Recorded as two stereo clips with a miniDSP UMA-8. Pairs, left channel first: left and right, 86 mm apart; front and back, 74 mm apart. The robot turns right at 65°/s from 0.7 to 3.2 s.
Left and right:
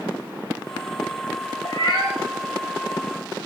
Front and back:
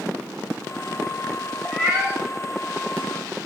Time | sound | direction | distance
1.6 | a cat meowing | 90° left | 0.8 m